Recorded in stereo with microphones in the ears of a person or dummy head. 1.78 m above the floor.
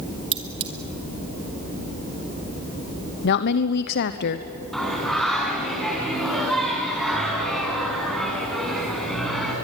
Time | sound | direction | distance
0.3 | cutlery clinking | 35° right (ahead or behind) | 2.0 m
3.2 | a woman speaking | 65° left (ahead or behind) | 1.0 m
4.7 | singing | 5° left (ahead or behind) | 4.5 m